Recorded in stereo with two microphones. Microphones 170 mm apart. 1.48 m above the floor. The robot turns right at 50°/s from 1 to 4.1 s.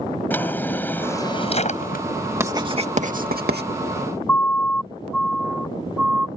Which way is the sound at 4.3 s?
10° left (ahead or behind).